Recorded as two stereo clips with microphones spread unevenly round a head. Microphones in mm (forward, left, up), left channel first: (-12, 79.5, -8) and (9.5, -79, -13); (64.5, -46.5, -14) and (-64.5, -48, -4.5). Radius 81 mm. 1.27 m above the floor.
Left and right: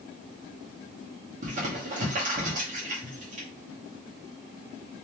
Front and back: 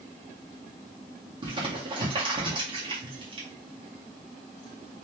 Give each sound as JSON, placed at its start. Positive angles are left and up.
{"t": 1.4, "sound": "crumpling", "azimuth_deg": -130, "distance_m": 1.8}